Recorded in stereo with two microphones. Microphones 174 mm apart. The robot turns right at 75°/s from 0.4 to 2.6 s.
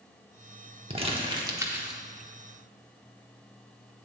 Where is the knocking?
I don't hear knocking.